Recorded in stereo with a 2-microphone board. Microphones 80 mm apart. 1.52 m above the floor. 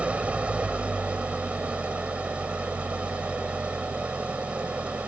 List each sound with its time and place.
0.0 s an engine running: 15° right (ahead or behind)